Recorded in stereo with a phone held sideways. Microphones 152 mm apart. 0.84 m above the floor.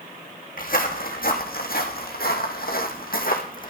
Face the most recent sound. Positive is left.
turn(degrees=60)  # may be behind; listen again after turning